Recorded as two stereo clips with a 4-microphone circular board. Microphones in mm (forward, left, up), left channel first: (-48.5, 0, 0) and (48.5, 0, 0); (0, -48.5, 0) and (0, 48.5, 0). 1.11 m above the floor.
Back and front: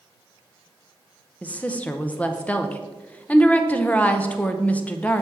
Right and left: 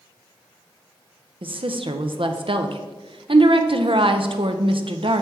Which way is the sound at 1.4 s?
105° left.